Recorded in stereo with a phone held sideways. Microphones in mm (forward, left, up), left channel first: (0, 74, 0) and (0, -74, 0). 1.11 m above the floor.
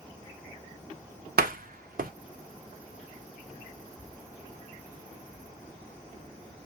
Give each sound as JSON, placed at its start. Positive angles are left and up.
{"t": 1.4, "sound": "a door slam", "side_deg": -70, "distance_m": 0.7}